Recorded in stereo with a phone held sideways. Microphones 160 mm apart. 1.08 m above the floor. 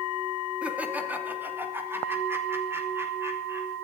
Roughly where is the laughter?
Centre.